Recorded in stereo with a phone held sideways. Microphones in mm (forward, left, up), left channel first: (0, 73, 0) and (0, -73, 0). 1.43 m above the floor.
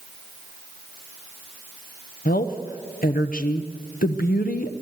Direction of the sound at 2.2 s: 85° left.